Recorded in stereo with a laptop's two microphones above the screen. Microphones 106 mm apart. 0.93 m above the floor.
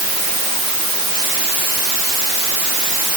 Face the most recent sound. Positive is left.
No sound to turn to.